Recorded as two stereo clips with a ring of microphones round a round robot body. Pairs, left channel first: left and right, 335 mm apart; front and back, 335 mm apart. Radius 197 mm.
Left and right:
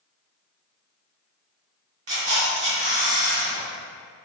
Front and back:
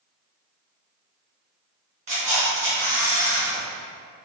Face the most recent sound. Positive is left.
turn(degrees=-115)